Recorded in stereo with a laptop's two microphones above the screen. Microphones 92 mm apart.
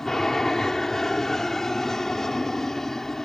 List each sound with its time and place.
0.0 s an aircraft: 5° left (ahead or behind)